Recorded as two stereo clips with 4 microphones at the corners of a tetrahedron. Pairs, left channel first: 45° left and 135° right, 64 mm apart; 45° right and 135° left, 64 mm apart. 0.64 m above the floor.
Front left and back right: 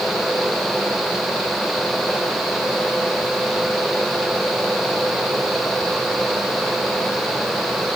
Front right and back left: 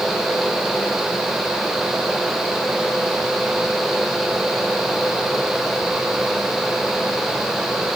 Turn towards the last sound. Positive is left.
No sound to turn to.